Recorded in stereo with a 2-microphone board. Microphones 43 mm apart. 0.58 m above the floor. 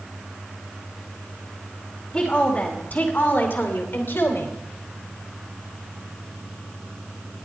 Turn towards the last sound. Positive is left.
turn(degrees=65)  # may be behind; listen again after turning